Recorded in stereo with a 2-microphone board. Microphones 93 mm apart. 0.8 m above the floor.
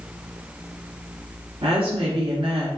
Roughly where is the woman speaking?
Right.